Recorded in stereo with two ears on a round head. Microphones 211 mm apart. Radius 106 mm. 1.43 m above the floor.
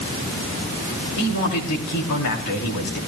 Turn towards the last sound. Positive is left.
turn(degrees=75)  # may be behind; listen again after turning